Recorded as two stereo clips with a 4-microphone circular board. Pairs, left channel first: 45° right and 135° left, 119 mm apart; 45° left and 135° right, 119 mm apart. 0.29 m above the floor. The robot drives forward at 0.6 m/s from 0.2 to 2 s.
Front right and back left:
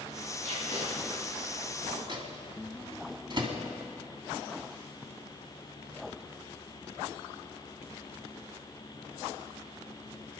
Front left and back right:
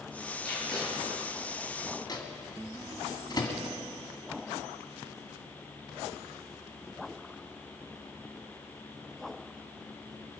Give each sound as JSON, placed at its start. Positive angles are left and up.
{"t": 0.4, "sound": "tape being pulled", "azimuth_deg": 130, "distance_m": 6.0}
{"t": 2.1, "sound": "a microwave", "azimuth_deg": 95, "distance_m": 2.0}